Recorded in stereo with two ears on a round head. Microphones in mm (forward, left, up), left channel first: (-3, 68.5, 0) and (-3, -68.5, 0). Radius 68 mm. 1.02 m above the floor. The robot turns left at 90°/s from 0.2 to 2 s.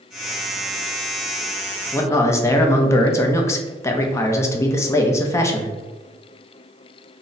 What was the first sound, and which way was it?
A man speaking, 10° left (ahead or behind).